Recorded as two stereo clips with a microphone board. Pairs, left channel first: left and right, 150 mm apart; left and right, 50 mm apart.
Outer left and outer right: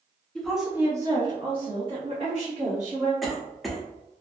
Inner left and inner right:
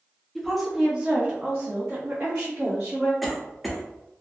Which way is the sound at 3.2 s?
Centre (ahead or behind).